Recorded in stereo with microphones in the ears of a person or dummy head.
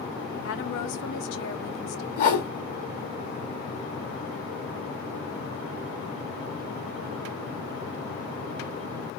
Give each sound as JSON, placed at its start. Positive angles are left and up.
{"t": 0.4, "sound": "a woman speaking", "side_deg": 80, "distance_m": 0.9}
{"t": 2.2, "sound": "a whoosh", "side_deg": 50, "distance_m": 1.9}